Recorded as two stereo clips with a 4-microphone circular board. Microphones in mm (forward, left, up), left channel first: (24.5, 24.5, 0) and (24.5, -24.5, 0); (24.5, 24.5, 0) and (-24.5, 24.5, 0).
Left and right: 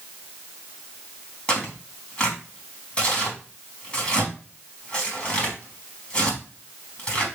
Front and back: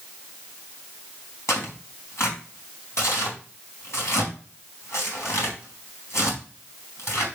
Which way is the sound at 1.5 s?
25° left.